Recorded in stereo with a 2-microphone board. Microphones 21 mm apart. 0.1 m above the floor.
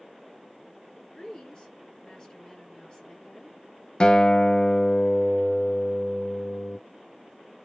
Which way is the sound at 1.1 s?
35° left (ahead or behind).